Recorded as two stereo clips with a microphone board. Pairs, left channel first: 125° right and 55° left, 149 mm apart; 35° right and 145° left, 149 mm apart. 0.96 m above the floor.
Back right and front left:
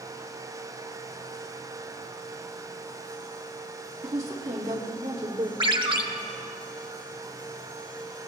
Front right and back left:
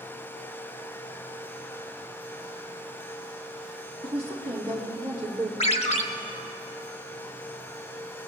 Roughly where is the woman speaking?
Left.